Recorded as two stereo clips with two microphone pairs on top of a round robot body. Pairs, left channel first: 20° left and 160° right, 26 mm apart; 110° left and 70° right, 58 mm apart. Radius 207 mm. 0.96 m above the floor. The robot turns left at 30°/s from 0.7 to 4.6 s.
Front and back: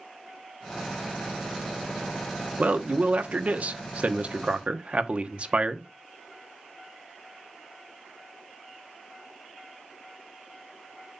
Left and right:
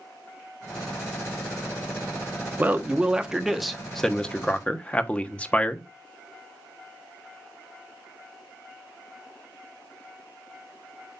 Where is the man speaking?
135° right, 1.2 m; by 5.9 s 165° left, 1.2 m.